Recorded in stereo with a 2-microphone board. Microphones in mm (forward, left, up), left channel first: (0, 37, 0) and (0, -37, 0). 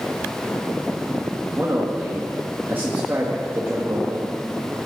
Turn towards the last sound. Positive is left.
turn(degrees=-30)  # may be behind; listen again after turning